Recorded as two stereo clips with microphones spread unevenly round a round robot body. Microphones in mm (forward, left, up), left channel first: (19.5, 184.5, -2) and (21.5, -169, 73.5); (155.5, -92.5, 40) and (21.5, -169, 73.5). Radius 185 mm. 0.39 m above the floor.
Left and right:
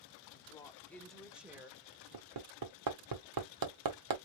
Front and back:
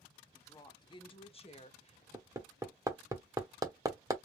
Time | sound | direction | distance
0.3 | a woman speaking | 65° left | 1.0 m
2.1 | hammering | 75° right | 1.3 m